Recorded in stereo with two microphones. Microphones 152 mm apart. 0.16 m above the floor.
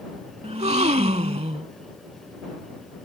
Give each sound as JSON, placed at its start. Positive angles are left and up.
{"t": 0.4, "sound": "a gasp", "side_deg": -45}